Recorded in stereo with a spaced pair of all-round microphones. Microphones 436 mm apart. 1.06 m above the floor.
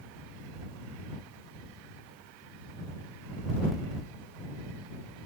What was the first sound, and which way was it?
Only background noise.